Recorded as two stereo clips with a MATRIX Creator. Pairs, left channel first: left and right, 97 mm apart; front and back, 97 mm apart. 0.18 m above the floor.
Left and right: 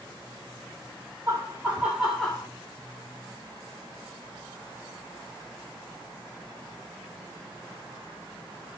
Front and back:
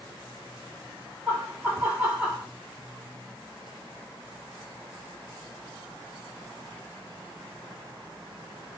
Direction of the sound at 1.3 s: 115° right.